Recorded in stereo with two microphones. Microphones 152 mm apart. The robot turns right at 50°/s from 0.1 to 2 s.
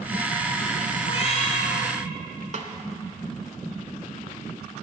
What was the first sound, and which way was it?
A cat meowing, 55° left.